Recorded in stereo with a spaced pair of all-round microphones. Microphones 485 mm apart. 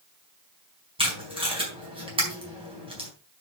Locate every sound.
1.0 s tape being pulled: 10° right (ahead or behind), 4.5 m